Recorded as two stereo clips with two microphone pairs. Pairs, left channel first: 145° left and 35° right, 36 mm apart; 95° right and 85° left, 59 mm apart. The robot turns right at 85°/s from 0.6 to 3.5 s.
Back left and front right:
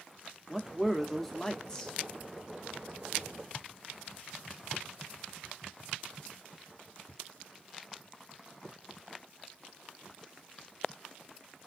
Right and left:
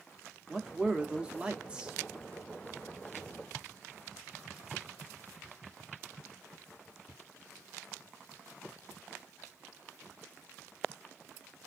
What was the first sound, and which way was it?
A man speaking, 20° left.